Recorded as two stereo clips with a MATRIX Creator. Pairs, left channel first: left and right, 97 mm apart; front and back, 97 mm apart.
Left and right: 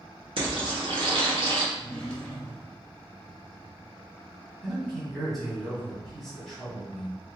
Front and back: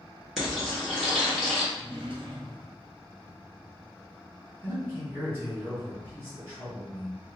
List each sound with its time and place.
0.4 s frying: 85° right, 1.6 m
1.7 s a drawer: 175° left, 1.2 m
4.6 s a man speaking: 175° left, 1.5 m